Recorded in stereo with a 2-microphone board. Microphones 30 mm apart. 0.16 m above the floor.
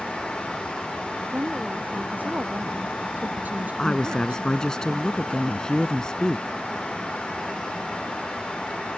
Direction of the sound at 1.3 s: 60° right (ahead or behind).